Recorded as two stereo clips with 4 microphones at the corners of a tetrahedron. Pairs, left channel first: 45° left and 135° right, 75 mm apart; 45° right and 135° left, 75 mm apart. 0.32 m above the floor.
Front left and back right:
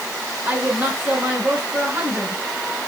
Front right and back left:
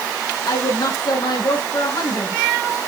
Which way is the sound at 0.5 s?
70° right.